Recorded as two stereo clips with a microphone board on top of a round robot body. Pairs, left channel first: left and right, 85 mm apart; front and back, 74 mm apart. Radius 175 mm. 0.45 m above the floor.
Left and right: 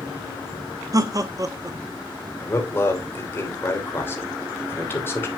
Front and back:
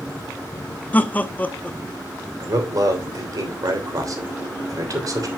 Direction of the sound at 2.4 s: 150° left.